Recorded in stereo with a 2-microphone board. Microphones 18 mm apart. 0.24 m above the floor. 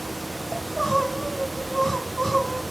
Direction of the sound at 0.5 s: 20° left (ahead or behind).